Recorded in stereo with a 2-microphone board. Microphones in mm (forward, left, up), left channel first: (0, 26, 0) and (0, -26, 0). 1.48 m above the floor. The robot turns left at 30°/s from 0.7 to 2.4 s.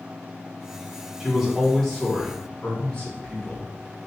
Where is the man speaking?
170° right, 1.7 m; by 3.7 s 155° left, 1.7 m.